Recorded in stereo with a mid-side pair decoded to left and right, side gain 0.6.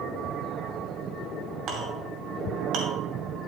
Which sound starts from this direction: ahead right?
A clink, at 1.7 s.